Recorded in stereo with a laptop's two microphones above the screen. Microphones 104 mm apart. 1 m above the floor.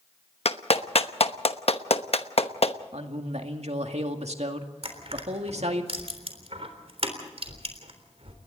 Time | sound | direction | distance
0.5 | a clap | 65° left (ahead or behind) | 0.9 m
2.9 | a man speaking | 75° right (ahead or behind) | 2 m
4.8 | crushing | 60° right (ahead or behind) | 3.5 m